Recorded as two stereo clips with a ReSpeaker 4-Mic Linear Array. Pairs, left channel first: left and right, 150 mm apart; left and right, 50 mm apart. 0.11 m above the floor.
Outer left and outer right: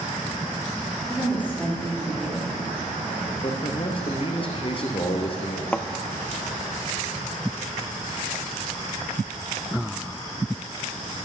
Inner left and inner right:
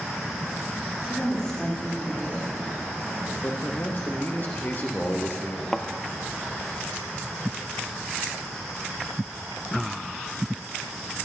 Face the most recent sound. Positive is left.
turn(degrees=10)  # may be behind; listen again after turning